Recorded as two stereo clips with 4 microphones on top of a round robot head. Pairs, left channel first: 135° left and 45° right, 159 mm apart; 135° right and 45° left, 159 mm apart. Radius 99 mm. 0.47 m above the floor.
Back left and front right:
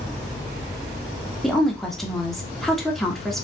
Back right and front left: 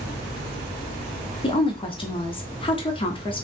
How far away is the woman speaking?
About 1.3 m.